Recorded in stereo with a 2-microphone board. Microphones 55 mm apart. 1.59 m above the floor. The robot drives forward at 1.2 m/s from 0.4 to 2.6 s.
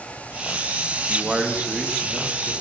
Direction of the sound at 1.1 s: 15° right (ahead or behind).